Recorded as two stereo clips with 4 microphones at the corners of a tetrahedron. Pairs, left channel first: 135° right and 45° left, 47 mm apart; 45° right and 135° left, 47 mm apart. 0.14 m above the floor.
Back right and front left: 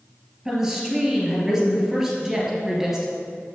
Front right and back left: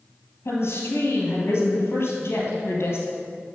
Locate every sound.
0.5 s a woman speaking: 35° right, 2.5 m